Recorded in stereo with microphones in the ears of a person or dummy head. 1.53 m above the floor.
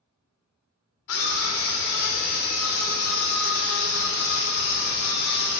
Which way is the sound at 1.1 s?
70° left (ahead or behind).